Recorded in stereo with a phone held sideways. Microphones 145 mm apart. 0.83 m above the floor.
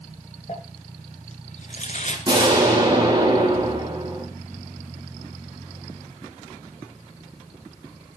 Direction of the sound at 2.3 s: 30° right (ahead or behind).